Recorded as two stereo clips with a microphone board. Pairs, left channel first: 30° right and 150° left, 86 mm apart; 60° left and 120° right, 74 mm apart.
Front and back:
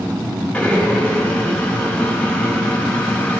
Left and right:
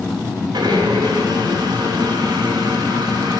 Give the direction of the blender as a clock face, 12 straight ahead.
4 o'clock.